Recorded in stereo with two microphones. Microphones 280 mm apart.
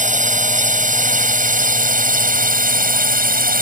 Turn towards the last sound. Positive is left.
turn(degrees=-30)  # may be behind; listen again after turning